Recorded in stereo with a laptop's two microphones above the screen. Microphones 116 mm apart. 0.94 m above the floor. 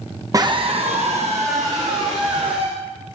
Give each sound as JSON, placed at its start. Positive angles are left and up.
{"t": 0.3, "sound": "a scream", "side_deg": -30, "distance_m": 0.5}